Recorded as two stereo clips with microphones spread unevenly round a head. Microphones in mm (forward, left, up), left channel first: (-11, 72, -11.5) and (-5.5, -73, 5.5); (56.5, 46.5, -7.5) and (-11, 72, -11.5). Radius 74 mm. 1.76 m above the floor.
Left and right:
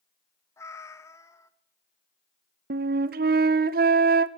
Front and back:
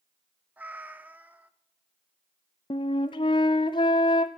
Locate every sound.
0.6 s a cat meowing: 145° left, 1.0 m
2.7 s a flute: 60° right, 0.6 m